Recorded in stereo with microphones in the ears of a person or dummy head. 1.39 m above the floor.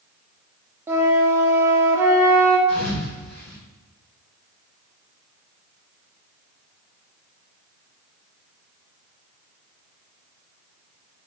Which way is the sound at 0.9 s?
20° right (ahead or behind).